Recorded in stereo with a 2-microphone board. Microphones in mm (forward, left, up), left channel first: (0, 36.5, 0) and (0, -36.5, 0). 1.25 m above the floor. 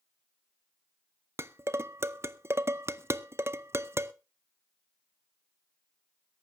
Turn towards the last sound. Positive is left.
turn(degrees=-35)  # may be behind; listen again after turning